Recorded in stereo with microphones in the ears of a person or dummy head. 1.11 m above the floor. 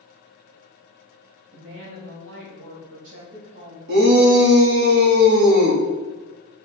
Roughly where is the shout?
Right.